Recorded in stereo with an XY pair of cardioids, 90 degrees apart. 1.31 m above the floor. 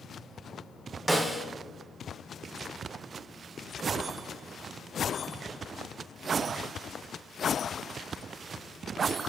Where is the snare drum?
15° right, 1.0 m.